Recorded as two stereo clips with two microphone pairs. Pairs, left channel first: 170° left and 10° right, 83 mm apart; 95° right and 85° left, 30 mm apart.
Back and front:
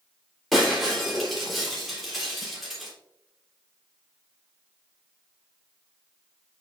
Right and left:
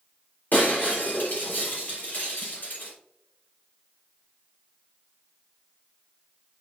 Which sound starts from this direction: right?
Breaking glass, at 0.5 s.